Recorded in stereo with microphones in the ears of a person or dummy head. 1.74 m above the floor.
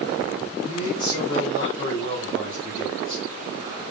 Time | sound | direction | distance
0.6 | a man speaking | 65° left (ahead or behind) | 6.5 m